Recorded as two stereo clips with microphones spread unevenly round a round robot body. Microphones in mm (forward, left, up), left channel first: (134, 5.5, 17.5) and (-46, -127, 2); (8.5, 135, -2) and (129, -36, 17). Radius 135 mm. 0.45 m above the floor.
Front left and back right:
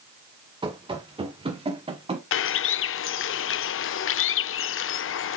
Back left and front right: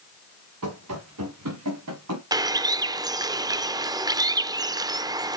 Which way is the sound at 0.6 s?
75° right.